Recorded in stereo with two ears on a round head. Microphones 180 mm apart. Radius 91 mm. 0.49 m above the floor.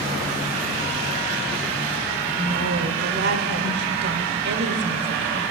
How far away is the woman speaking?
About 1.2 m.